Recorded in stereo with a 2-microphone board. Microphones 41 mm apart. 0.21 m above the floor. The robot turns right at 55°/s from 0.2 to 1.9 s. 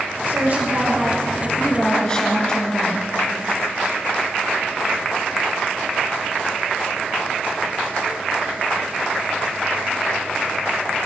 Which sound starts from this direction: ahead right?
A woman speaking, at 0.3 s.